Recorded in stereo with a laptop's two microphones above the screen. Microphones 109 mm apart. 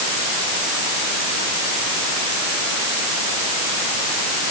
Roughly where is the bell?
No bell in this recording.